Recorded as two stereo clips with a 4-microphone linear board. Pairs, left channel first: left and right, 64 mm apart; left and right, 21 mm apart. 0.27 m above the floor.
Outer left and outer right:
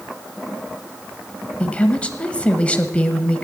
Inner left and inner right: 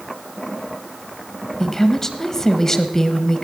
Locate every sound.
1.6 s a woman speaking: 20° left (ahead or behind), 1.1 m